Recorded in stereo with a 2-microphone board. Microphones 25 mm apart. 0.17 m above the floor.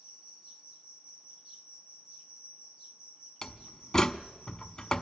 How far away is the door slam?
About 0.7 m.